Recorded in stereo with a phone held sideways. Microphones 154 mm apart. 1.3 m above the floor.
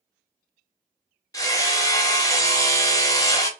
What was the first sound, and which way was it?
Hammering, 20° left (ahead or behind).